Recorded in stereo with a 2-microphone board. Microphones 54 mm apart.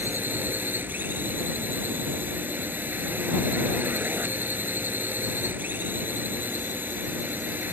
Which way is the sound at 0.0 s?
35° right (ahead or behind).